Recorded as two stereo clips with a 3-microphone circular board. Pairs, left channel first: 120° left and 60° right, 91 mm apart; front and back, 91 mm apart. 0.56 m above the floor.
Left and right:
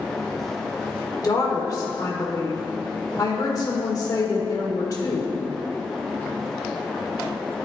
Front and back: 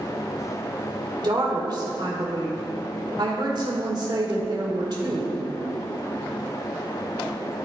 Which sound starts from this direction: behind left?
A woman speaking, at 1.2 s.